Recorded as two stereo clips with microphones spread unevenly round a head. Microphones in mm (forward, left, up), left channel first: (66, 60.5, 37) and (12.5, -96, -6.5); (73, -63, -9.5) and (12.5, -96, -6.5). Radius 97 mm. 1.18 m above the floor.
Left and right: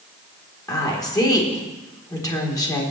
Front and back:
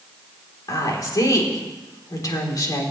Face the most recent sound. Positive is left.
turn(degrees=0)